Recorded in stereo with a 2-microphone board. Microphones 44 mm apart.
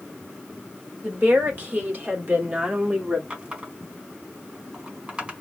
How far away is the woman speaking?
About 2 m.